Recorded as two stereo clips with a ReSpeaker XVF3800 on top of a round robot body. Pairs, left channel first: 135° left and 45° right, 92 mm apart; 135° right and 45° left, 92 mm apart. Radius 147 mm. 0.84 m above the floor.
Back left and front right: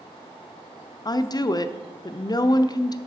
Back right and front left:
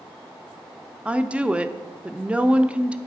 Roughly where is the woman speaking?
Behind left.